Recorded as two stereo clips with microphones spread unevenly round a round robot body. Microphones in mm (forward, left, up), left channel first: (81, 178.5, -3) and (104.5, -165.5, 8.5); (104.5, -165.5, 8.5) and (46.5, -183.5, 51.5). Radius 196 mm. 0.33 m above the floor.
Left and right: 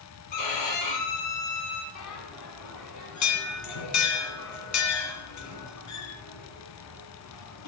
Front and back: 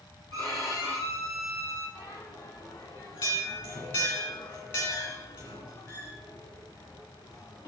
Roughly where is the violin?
Left.